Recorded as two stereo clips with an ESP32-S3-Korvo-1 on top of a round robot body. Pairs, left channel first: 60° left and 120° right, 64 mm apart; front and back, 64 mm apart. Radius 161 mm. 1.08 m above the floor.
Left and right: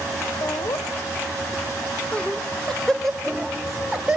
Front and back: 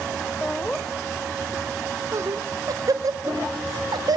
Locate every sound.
0.4 s laughter: 60° left, 0.7 m; by 4.2 s 155° left, 1.8 m